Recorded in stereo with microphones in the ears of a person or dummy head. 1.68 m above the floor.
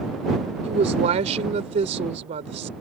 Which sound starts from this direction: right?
A woman speaking, at 0.6 s.